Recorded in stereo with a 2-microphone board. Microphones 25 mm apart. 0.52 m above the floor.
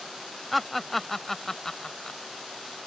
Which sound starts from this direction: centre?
Laughter, at 0.5 s.